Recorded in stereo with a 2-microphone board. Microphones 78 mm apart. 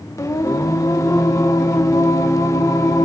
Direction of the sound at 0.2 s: 45° left (ahead or behind).